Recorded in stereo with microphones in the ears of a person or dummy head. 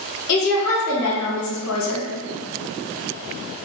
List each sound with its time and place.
0.3 s a woman speaking: 80° left, 1.4 m